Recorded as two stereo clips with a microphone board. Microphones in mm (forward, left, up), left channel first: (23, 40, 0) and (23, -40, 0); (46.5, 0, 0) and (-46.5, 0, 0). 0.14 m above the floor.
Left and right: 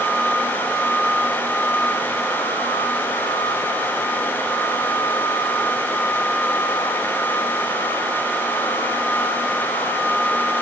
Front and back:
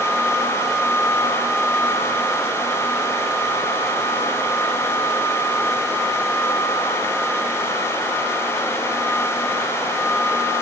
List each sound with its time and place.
Only background noise.